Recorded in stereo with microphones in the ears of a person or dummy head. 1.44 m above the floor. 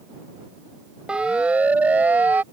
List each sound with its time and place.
1.1 s a siren: 10° right (ahead or behind)